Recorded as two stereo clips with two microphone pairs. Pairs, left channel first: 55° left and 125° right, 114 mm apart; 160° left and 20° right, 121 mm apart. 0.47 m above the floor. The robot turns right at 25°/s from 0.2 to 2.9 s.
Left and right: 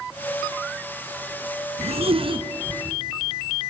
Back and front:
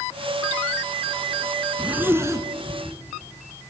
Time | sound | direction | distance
1.8 | a zipper | 100° right | 1.3 m